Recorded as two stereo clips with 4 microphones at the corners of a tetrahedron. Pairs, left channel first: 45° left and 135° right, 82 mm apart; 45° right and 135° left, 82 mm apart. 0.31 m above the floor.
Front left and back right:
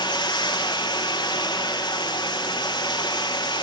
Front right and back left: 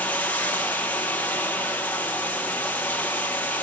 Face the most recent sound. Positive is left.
turn(degrees=25)